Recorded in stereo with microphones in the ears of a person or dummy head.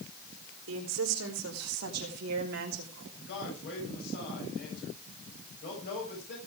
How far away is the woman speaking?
About 3.5 m.